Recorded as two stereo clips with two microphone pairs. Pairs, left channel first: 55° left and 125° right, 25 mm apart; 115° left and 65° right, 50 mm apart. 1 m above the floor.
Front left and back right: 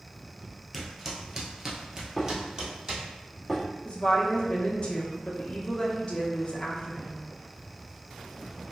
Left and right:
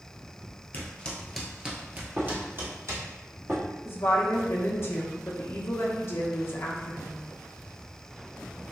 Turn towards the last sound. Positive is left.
turn(degrees=95)